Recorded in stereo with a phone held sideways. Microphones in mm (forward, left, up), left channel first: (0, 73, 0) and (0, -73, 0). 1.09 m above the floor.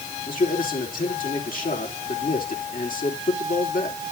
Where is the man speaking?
70° left (ahead or behind), 4 m.